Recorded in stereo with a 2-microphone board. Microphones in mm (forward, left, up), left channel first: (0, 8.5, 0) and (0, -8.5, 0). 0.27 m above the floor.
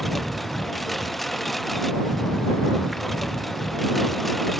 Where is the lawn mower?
10° left (ahead or behind).